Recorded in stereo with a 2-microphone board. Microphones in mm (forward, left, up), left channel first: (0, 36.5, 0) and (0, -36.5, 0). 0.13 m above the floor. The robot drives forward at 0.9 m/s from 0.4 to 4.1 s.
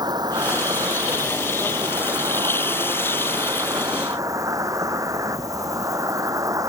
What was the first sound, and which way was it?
An insect, 70° right (ahead or behind).